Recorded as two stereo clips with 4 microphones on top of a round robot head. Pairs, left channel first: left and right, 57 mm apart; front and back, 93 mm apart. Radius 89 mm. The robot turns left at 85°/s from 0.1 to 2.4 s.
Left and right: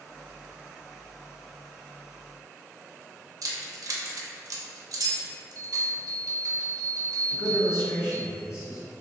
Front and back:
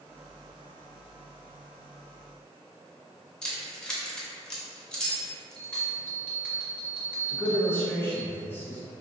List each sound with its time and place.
3.4 s keys jangling: 85° right, 0.7 m
5.5 s a bell: 70° right, 1.5 m
7.3 s a man speaking: 65° left, 1.3 m